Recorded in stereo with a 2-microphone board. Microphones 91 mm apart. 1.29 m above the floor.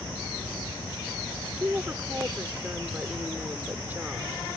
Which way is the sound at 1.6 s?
20° right (ahead or behind).